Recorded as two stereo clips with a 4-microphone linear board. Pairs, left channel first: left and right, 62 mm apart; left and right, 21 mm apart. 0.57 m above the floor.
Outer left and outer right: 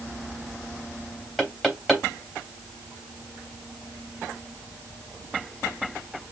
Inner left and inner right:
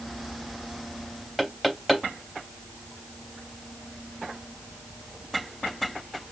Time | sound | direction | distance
1.4 | knocking | 5° right (ahead or behind) | 3 m